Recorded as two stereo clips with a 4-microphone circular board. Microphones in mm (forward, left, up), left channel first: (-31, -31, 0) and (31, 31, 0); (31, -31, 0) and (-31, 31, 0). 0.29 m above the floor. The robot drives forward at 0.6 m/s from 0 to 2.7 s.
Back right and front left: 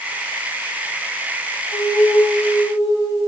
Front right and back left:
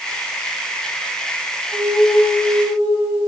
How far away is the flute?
About 1.9 m.